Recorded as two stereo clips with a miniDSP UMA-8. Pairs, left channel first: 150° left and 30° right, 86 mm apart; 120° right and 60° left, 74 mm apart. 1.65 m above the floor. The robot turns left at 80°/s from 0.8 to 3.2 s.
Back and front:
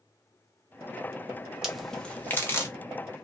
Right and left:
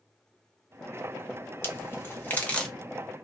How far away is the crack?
About 0.7 m.